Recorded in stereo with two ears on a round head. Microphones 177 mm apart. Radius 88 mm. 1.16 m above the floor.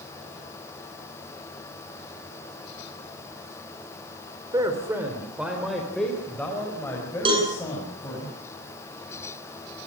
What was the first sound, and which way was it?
A man speaking, 20° right (ahead or behind).